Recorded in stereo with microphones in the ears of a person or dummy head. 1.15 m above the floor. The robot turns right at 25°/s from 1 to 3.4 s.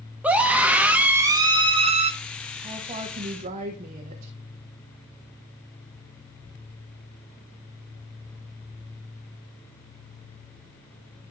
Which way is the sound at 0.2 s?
10° right (ahead or behind).